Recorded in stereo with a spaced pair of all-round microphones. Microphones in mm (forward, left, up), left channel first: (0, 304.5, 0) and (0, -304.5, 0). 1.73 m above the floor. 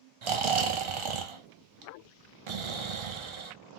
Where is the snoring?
50° right (ahead or behind), 0.6 m.